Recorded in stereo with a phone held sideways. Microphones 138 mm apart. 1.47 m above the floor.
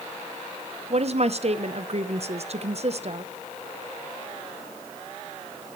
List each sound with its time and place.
0.9 s a woman speaking: 50° right (ahead or behind), 0.8 m